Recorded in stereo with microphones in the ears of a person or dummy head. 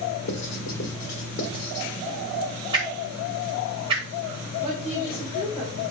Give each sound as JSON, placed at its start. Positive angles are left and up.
{"t": 0.3, "sound": "writing", "side_deg": 55, "distance_m": 2.5}
{"t": 2.7, "sound": "a whoosh", "side_deg": -25, "distance_m": 1.9}
{"t": 4.6, "sound": "a woman speaking", "side_deg": -5, "distance_m": 4.5}